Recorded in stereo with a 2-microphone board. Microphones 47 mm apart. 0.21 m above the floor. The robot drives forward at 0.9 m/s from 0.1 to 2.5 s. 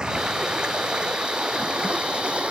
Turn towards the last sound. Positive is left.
turn(degrees=-25)  # may be behind; listen again after turning